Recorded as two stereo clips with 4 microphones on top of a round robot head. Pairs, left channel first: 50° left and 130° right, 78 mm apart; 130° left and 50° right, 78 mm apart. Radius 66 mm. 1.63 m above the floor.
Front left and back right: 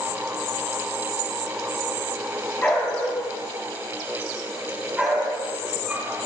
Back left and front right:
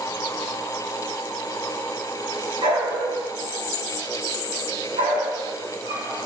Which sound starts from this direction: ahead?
A dog barking, at 2.6 s.